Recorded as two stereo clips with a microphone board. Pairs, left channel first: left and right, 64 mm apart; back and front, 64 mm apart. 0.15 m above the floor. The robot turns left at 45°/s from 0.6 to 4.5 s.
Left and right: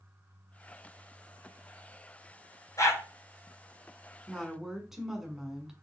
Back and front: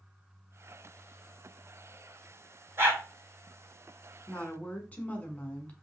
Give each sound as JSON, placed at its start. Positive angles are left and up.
{"t": 2.8, "sound": "a dog barking", "azimuth_deg": 50, "distance_m": 1.4}
{"t": 4.3, "sound": "a woman speaking", "azimuth_deg": -155, "distance_m": 1.2}